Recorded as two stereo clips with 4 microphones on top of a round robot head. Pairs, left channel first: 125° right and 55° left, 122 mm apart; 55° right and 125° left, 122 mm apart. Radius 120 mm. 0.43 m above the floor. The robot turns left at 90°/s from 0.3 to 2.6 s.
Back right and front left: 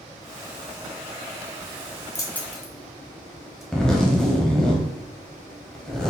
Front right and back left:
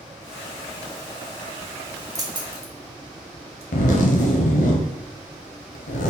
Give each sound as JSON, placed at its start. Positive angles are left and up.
{"t": 2.1, "sound": "keys jangling", "azimuth_deg": 180, "distance_m": 1.0}
{"t": 3.7, "sound": "a zipper", "azimuth_deg": -40, "distance_m": 0.6}